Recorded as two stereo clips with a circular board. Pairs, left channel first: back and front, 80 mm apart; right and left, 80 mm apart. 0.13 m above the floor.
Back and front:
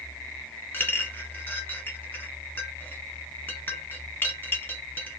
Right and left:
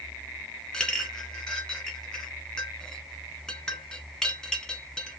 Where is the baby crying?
No baby crying in this recording.